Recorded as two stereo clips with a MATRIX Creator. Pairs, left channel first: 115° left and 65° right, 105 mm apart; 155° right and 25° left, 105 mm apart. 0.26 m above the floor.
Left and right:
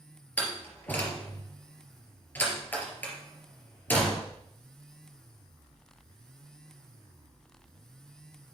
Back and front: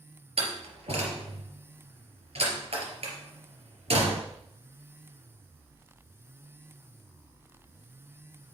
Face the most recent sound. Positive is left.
turn(degrees=40)